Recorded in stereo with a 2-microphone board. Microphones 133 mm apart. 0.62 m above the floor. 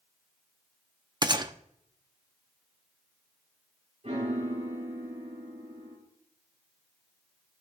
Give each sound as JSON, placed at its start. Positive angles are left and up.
{"t": 1.2, "sound": "a gunshot", "side_deg": -30, "distance_m": 0.6}
{"t": 4.0, "sound": "a piano", "side_deg": -50, "distance_m": 5.0}